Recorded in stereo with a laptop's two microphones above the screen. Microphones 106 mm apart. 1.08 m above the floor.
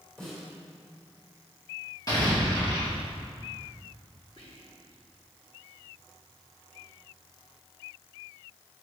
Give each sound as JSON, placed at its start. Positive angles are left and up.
{"t": 0.2, "sound": "a snare drum", "side_deg": 5, "distance_m": 4.0}
{"t": 2.1, "sound": "an explosion", "side_deg": 40, "distance_m": 2.5}
{"t": 4.4, "sound": "whispering", "side_deg": 60, "distance_m": 1.9}